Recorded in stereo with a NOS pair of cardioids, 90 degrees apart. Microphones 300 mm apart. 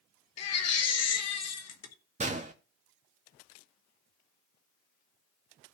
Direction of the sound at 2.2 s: 25° right.